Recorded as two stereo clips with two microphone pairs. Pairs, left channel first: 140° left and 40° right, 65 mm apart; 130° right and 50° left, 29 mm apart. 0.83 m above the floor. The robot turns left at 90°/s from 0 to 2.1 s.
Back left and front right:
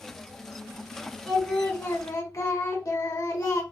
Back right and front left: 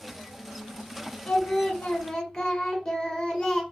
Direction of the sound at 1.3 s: 125° right.